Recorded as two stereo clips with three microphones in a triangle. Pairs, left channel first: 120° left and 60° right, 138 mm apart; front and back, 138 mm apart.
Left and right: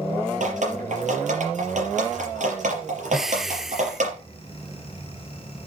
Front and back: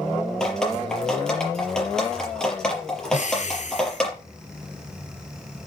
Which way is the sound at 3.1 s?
25° left.